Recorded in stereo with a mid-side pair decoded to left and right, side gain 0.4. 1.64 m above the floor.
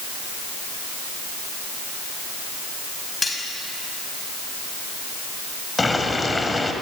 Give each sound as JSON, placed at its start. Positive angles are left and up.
{"t": 3.2, "sound": "cutlery clinking", "azimuth_deg": 25, "distance_m": 6.0}
{"t": 5.8, "sound": "boiling", "azimuth_deg": 25, "distance_m": 4.5}